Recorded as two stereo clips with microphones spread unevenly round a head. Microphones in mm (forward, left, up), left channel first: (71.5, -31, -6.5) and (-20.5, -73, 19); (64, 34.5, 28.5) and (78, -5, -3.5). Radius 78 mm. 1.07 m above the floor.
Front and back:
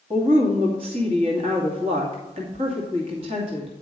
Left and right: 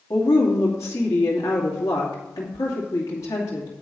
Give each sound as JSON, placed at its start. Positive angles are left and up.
{"t": 0.1, "sound": "a woman speaking", "azimuth_deg": 150, "distance_m": 2.0}